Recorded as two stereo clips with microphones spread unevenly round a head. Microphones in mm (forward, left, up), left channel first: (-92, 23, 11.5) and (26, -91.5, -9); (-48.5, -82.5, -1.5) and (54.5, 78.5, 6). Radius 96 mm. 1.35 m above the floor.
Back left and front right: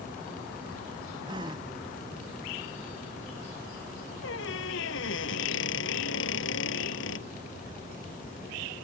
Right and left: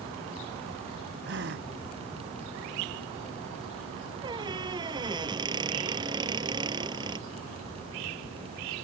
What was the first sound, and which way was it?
A gasp, 25° left.